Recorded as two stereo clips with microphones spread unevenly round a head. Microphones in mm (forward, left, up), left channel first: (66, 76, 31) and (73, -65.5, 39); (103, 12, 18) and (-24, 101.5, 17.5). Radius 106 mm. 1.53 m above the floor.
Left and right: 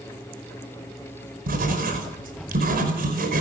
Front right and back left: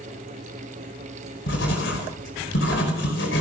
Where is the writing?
70° right, 5 m.